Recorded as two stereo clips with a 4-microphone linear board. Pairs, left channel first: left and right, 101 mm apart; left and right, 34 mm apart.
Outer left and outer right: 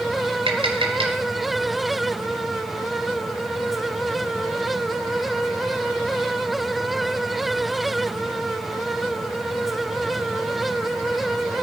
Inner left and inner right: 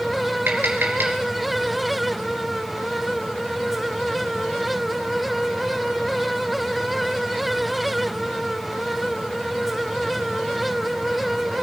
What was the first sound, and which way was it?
Tapping, 70° right (ahead or behind).